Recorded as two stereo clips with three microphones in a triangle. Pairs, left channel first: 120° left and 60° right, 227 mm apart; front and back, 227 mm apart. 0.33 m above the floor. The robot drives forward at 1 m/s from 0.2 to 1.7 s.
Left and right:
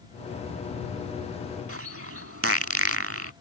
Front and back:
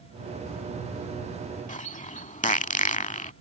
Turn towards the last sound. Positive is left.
turn(degrees=-60)